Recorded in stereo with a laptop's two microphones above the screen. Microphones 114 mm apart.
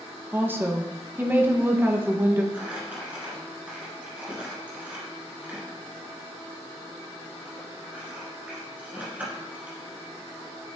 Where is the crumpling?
15° right (ahead or behind), 1.9 m.